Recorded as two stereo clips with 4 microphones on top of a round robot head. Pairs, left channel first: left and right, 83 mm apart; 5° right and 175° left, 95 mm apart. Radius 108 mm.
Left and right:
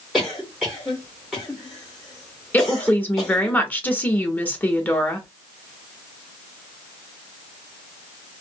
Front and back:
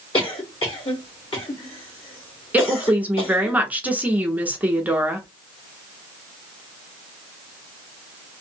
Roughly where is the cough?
Ahead.